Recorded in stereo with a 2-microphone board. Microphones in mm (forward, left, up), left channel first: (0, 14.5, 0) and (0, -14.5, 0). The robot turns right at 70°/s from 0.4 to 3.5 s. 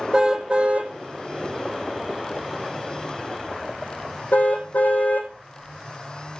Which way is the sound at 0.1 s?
25° right (ahead or behind).